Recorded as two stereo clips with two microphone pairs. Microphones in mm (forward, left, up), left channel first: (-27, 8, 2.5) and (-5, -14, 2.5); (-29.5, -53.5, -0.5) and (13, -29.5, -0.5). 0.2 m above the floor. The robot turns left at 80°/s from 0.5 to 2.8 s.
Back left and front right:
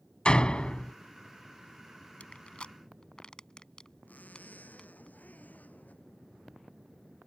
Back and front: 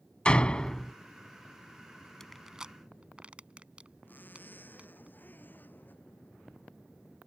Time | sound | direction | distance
0.2 | a door slam | 155° left | ?
2.2 | crushing | 135° left | ?
4.1 | a zipper | 160° left | ?